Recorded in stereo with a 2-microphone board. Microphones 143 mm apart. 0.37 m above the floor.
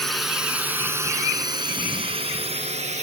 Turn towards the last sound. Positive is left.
turn(degrees=-55)  # may be behind; listen again after turning